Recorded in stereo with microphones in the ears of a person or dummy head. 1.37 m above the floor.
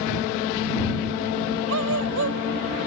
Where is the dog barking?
70° right (ahead or behind).